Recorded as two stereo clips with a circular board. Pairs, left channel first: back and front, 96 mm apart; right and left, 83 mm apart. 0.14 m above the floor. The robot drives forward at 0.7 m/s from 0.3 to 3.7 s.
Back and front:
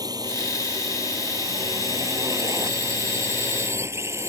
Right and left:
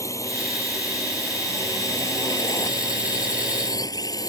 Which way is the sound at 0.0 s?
45° right.